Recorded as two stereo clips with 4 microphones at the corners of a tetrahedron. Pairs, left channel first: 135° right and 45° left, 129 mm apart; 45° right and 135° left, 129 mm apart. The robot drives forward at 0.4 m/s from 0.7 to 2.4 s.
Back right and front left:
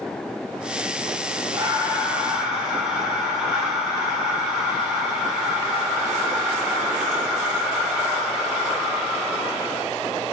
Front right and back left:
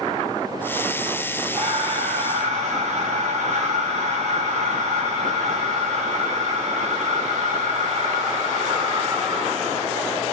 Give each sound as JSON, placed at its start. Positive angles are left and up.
{"t": 1.5, "sound": "breathing", "azimuth_deg": 110, "distance_m": 0.8}